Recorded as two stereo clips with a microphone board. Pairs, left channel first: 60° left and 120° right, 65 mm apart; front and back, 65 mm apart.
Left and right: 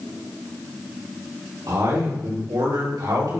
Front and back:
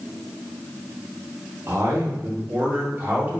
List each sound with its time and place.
1.7 s a man speaking: 130° right, 3.5 m; by 3.4 s 115° right, 3.5 m